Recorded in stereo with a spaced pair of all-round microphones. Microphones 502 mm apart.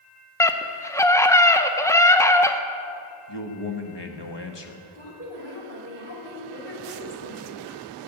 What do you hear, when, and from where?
0.4 s a scream: 5° left (ahead or behind), 0.7 m
3.3 s a man speaking: 55° left (ahead or behind), 1.2 m
5.0 s a woman speaking: 80° left, 3.5 m